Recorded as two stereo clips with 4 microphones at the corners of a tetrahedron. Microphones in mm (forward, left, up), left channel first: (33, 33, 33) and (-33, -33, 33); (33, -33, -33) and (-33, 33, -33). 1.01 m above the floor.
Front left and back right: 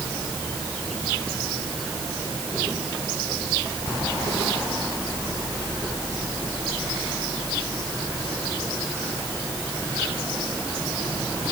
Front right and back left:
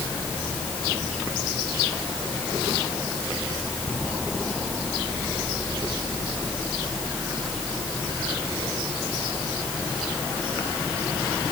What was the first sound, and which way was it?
Only background noise.